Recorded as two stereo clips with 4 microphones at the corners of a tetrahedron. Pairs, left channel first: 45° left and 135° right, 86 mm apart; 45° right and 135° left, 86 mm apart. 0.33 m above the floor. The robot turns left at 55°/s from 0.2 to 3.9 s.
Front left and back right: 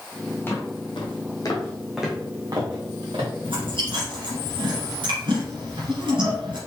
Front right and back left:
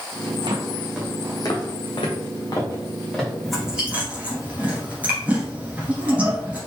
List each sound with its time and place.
0.5 s footsteps: 110° left, 1.2 m; by 3.3 s 140° right, 2.5 m
3.4 s chewing: 130° right, 2 m; by 6.6 s 155° right, 2 m